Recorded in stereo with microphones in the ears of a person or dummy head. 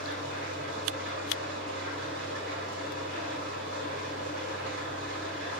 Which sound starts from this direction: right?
An engine running, at 0.0 s.